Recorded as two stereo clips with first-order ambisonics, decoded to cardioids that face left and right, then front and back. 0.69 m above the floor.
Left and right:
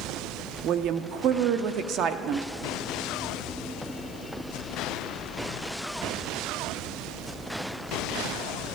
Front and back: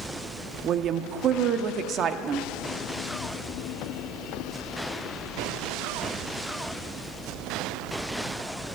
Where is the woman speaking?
130° right, 0.8 m.